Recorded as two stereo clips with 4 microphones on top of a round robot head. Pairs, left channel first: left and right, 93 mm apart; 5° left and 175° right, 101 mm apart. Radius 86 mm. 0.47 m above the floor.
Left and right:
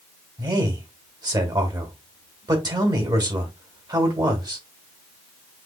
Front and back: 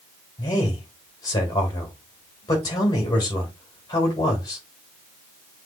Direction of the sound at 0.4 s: 50° right.